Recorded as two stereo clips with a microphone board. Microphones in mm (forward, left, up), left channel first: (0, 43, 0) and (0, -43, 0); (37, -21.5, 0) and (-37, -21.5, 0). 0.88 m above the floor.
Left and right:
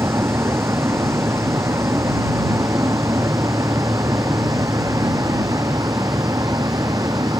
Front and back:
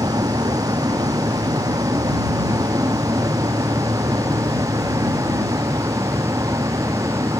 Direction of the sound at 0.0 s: 150° right.